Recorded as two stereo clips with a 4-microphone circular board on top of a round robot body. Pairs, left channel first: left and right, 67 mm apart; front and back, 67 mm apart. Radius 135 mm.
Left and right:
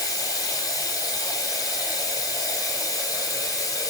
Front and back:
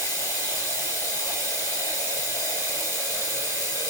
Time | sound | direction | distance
0.0 | running water | 130° left | 7 m